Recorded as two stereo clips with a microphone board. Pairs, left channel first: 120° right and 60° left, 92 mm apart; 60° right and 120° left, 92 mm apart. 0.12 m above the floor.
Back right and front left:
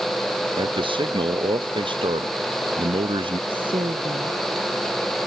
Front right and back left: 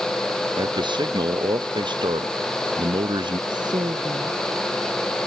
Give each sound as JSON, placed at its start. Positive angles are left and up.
{"t": 0.6, "sound": "a man speaking", "azimuth_deg": 85}
{"t": 3.5, "sound": "a woman speaking", "azimuth_deg": 85}